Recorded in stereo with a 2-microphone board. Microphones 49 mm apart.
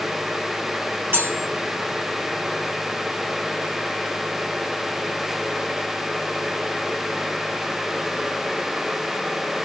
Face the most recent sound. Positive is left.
turn(degrees=-55)  # may be behind; listen again after turning